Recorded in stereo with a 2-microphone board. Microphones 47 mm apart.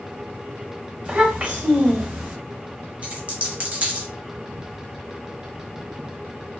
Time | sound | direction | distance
1.1 | a child speaking | 25° right (ahead or behind) | 1.0 m
3.0 | a dropped coin | 30° right (ahead or behind) | 0.8 m